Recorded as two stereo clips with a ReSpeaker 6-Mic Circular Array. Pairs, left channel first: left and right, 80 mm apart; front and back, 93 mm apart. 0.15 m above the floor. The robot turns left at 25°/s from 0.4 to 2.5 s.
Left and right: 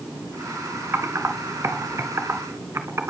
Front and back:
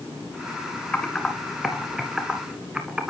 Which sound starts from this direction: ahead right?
Typing on a keyboard, at 0.9 s.